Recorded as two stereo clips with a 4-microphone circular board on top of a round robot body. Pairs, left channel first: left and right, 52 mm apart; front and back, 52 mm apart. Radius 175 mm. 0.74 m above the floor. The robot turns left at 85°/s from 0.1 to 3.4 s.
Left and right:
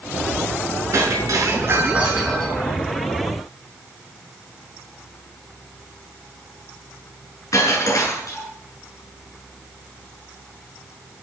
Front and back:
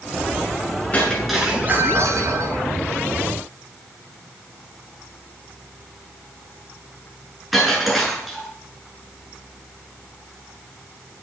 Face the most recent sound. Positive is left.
turn(degrees=90)